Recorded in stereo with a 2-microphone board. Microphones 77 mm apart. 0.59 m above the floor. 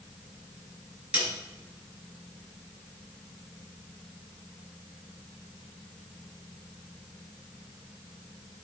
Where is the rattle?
I don't hear a rattle.